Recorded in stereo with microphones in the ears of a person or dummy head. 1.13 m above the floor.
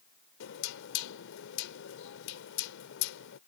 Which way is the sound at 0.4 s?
80° left.